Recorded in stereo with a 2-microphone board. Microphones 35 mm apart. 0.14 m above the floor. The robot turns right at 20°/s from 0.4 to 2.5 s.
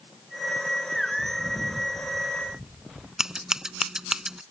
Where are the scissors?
20° right (ahead or behind).